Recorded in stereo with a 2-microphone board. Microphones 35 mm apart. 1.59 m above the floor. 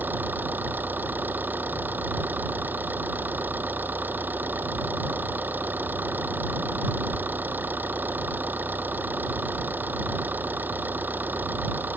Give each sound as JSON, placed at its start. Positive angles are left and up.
{"t": 0.0, "sound": "an engine running", "side_deg": -60}